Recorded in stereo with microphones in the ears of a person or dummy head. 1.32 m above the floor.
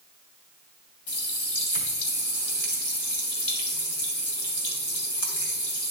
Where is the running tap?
65° left (ahead or behind), 2.5 m.